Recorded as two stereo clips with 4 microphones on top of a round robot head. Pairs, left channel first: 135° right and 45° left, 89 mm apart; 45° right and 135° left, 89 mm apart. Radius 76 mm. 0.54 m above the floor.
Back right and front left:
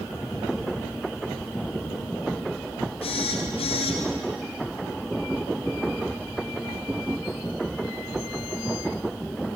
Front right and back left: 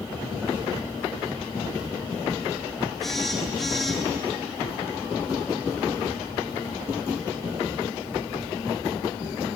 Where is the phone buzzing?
130° right, 4 m.